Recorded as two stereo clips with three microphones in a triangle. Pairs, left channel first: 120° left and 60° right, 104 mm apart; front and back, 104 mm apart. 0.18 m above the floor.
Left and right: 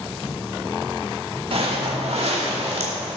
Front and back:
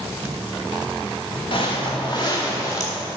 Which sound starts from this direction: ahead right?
Footsteps, at 1.5 s.